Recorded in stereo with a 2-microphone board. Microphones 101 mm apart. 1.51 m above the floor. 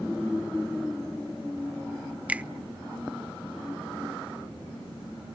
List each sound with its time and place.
2.3 s a finger snap: 15° right (ahead or behind), 0.5 m